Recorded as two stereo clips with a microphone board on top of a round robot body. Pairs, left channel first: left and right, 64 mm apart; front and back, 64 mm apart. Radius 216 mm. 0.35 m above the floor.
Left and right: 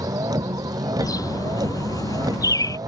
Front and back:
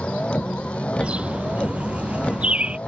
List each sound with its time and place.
0.0 s a vehicle: 75° right
1.0 s a bird: 110° left